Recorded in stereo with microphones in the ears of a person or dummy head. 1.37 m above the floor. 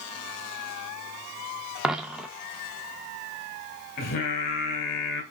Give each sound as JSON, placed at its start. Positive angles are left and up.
{"t": 1.8, "sound": "a dropped coin", "side_deg": -5, "distance_m": 0.7}
{"t": 4.0, "sound": "singing", "side_deg": 50, "distance_m": 1.7}